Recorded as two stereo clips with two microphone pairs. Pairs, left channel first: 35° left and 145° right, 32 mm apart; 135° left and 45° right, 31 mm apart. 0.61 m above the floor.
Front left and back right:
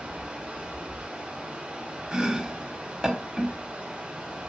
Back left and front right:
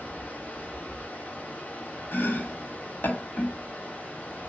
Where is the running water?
165° left, 5.5 m.